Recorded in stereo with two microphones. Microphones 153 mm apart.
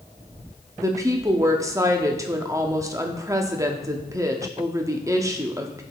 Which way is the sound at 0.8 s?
20° right (ahead or behind).